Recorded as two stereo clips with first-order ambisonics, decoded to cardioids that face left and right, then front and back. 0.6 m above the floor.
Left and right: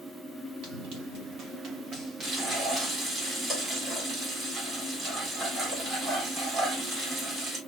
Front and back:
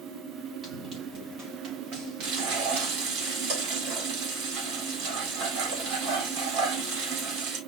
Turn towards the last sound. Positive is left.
turn(degrees=-145)